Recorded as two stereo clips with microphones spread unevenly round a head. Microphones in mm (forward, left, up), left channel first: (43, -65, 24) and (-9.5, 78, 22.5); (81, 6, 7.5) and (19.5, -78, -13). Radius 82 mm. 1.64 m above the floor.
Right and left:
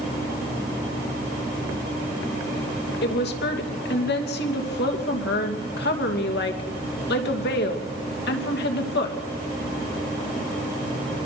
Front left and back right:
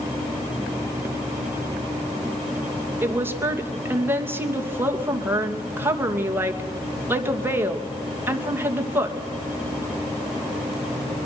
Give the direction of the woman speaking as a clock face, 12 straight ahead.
2 o'clock.